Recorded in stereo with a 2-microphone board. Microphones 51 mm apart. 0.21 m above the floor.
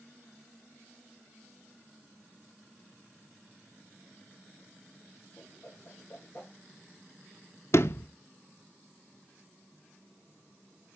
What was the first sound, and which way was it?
A whoosh, 20° left (ahead or behind).